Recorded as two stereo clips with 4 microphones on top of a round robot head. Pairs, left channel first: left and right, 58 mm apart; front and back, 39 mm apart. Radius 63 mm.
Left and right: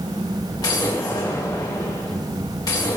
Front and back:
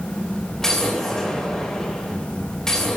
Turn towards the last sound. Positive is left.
turn(degrees=75)